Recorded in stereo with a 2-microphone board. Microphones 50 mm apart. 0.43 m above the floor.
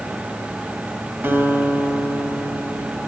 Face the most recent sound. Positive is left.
turn(degrees=-50)  # may be behind; listen again after turning